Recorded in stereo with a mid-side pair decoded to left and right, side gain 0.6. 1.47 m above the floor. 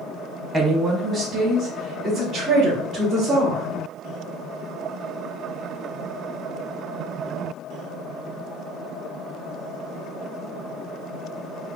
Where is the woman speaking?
20° right, 0.8 m; by 3.6 s 50° right, 2.5 m.